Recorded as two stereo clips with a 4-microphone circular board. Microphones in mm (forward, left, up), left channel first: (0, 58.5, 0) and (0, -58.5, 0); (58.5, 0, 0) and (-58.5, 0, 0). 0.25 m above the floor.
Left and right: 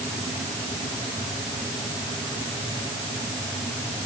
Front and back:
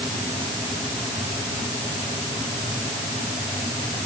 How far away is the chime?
No chime in this recording.